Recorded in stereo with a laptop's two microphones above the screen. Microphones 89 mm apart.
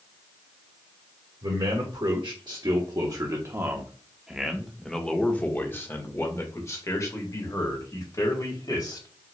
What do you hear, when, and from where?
1.4 s a man speaking: 70° right (ahead or behind), 1.6 m; by 9.1 s 45° left (ahead or behind), 3 m